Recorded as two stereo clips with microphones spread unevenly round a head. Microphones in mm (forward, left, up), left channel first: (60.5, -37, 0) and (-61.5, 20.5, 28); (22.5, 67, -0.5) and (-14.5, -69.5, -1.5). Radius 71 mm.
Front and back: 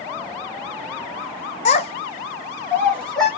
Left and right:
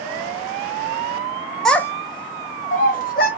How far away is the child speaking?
About 0.5 m.